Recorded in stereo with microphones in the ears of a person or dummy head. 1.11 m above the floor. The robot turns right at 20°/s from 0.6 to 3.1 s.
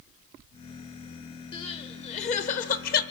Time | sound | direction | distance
1.5 | crying | 30° left (ahead or behind) | 1.2 m